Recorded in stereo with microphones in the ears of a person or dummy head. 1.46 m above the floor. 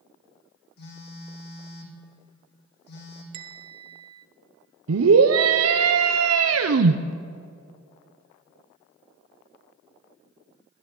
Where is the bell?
25° right (ahead or behind), 0.7 m.